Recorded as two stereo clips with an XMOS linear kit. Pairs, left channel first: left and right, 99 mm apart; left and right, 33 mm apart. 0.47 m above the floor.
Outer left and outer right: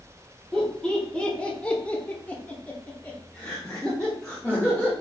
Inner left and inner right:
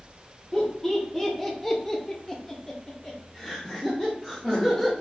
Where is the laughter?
10° left (ahead or behind), 1.4 m; by 4.9 s 5° left (ahead or behind), 1.4 m.